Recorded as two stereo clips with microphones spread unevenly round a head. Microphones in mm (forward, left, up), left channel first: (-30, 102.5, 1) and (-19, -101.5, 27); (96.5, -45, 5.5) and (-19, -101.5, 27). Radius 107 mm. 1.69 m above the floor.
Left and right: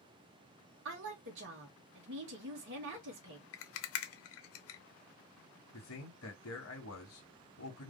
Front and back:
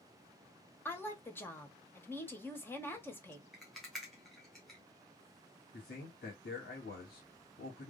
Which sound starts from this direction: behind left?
A rattle, at 3.5 s.